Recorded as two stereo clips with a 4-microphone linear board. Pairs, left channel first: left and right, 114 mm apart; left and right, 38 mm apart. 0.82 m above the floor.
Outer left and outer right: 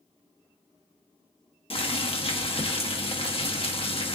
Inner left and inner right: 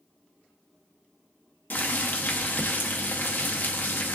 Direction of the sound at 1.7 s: 55° left (ahead or behind).